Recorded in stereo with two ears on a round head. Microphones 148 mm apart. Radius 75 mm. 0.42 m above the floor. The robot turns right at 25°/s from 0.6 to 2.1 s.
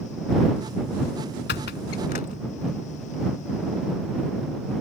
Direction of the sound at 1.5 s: 75° left (ahead or behind).